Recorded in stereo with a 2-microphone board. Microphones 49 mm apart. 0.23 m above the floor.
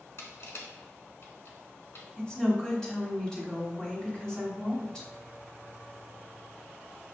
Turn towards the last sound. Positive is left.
turn(degrees=15)  # may be behind; listen again after turning